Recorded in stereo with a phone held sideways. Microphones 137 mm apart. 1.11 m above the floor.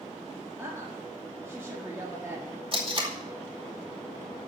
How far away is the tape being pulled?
About 2.5 m.